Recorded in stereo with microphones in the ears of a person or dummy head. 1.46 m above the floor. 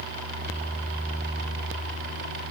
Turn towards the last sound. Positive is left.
No sound to turn to.